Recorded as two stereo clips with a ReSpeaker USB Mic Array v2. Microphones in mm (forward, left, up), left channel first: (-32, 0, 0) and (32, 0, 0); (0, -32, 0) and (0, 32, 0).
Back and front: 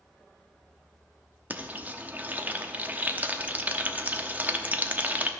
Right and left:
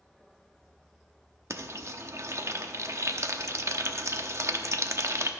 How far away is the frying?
About 0.8 m.